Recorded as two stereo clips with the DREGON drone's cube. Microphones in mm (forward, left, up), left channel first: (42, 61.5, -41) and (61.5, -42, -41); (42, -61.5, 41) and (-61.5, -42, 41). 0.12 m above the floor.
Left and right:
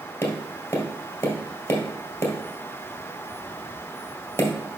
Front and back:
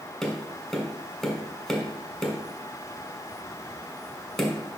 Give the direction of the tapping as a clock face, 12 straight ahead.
10 o'clock.